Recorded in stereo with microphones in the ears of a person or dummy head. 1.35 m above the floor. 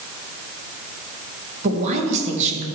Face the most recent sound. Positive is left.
turn(degrees=-40)  # may be behind; listen again after turning